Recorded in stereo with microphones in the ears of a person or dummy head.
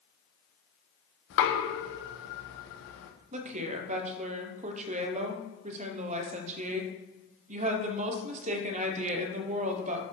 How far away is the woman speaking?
About 1.1 m.